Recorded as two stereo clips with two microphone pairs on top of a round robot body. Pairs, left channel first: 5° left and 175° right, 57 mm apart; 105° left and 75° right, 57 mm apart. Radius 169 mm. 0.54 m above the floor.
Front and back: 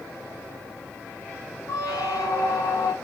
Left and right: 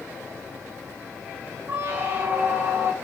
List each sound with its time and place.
1.7 s a squeak: 20° right, 0.6 m